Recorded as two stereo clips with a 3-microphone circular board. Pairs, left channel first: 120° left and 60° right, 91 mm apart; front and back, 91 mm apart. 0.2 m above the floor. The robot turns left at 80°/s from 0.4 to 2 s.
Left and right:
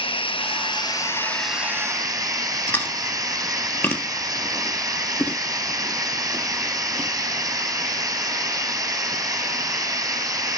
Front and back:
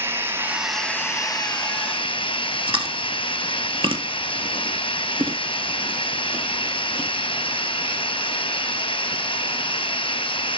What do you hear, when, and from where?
0.0 s running water: 115° left, 1.0 m; by 10.6 s 10° right, 1.0 m
2.7 s chewing: 170° right, 1.1 m